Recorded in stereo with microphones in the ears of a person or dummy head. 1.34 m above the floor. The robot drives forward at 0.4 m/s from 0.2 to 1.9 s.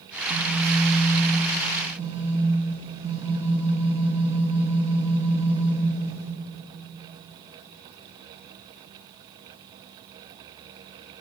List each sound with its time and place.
0.1 s a phone buzzing: 55° right (ahead or behind), 2.5 m; by 6.3 s 45° right (ahead or behind), 3 m